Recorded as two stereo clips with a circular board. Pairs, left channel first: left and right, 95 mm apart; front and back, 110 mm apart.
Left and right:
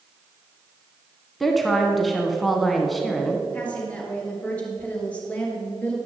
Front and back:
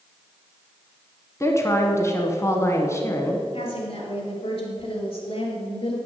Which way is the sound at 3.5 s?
15° left.